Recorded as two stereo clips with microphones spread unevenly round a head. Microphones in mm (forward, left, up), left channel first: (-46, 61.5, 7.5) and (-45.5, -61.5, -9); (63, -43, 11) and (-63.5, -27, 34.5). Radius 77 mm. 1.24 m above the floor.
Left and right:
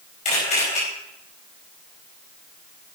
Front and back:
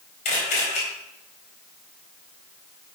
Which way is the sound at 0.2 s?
40° left.